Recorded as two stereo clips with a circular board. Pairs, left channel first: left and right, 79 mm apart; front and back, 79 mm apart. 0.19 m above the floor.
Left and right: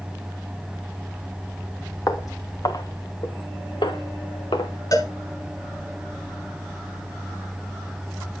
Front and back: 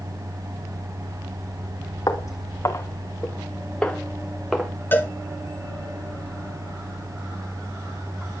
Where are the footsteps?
40° left, 2 m; by 4.7 s 95° left, 2 m.